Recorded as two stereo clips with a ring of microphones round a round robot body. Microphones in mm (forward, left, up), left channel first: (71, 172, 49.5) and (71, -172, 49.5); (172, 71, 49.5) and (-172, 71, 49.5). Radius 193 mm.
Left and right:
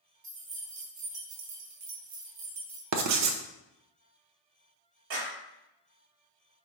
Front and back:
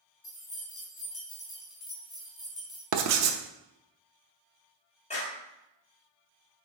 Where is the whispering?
No whispering in this recording.